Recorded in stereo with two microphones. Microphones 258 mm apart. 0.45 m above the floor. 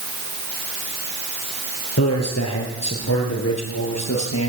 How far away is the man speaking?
About 7.5 m.